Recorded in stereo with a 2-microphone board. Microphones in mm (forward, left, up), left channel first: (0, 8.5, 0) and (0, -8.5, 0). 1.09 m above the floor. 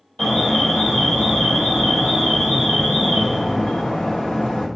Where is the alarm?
65° left (ahead or behind), 3 m.